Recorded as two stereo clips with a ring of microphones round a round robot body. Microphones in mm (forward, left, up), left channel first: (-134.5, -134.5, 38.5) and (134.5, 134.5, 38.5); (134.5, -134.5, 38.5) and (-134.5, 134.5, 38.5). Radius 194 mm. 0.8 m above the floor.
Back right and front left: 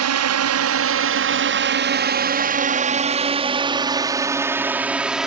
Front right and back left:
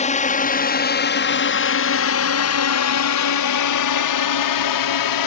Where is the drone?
20° left; by 5.3 s 45° right.